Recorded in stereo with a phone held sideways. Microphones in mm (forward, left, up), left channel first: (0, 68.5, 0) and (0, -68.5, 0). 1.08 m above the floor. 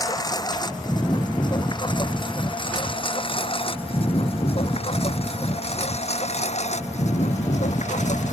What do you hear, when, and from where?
0.0 s a lawn mower: 30° left (ahead or behind); by 8.3 s 60° left (ahead or behind)